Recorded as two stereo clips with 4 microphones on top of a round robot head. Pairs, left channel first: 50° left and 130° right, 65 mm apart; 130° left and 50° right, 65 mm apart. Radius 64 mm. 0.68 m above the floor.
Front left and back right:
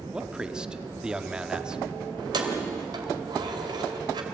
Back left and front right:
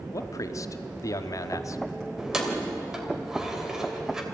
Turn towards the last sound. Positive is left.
turn(degrees=-135)